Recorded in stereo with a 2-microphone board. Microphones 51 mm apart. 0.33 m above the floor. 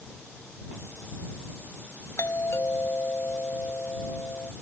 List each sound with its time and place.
2.2 s a doorbell: 55° left (ahead or behind)